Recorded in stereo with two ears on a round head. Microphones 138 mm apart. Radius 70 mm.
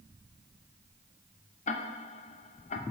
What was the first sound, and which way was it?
Ticking, 50° left (ahead or behind).